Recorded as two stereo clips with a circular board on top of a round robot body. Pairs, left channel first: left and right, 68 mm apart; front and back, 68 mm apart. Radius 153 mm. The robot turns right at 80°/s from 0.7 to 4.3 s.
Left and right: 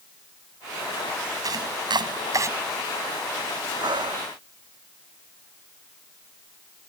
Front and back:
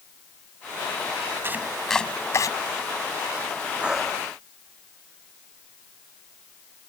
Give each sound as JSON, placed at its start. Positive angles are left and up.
{"t": 1.4, "sound": "chopping", "azimuth_deg": -125}
{"t": 3.8, "sound": "breathing", "azimuth_deg": -110}